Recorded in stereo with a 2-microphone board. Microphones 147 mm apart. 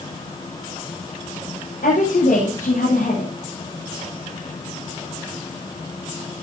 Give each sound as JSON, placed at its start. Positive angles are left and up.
{"t": 1.8, "sound": "a woman speaking", "side_deg": 85, "distance_m": 8.5}